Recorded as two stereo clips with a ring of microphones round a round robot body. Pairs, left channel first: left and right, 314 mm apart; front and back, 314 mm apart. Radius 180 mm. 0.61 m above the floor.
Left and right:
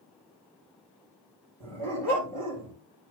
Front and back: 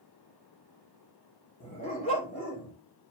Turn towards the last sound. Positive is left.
turn(degrees=-65)